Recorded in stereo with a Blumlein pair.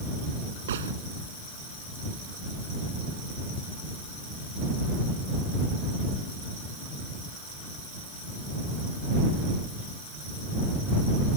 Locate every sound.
0.7 s a gunshot: 60° right